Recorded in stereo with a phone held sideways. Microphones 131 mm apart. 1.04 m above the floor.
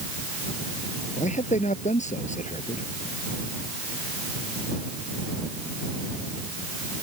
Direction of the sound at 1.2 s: 65° left (ahead or behind).